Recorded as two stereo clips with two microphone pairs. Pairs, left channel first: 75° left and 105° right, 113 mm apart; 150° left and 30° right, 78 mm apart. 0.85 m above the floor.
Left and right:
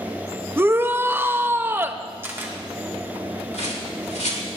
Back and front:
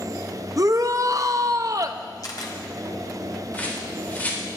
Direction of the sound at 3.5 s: 80° left.